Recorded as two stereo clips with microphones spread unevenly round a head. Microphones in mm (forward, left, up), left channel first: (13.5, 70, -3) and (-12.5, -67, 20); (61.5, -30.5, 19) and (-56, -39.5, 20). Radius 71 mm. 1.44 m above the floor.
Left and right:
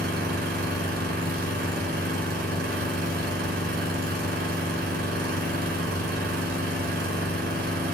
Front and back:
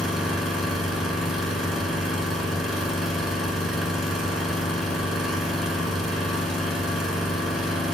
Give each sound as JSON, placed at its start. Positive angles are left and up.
{"t": 0.0, "sound": "an engine running", "azimuth_deg": -85, "distance_m": 5.0}